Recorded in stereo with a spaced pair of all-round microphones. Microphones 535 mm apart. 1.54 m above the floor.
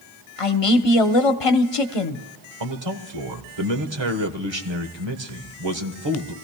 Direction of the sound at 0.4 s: 75° left (ahead or behind).